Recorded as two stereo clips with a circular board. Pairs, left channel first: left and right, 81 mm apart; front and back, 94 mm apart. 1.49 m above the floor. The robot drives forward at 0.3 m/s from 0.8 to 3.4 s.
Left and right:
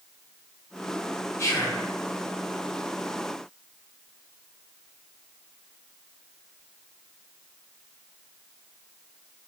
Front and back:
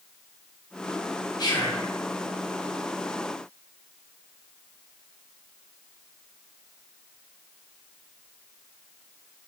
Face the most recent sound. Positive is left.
turn(degrees=90)